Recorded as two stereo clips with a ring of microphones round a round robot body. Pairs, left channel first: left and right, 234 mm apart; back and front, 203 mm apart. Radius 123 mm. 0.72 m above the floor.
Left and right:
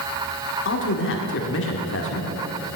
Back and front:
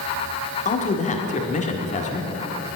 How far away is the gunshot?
I don't hear a gunshot.